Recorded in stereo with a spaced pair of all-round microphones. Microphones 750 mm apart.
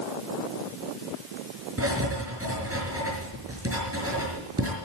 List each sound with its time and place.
1.8 s writing: 20° right (ahead or behind), 6 m